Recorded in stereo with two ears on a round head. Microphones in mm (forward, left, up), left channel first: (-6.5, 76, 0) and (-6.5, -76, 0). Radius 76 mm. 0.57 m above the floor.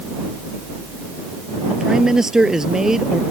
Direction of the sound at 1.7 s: 5° right (ahead or behind).